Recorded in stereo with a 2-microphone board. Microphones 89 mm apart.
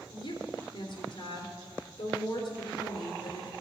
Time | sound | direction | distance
0.1 | a woman speaking | 55° left (ahead or behind) | 3 m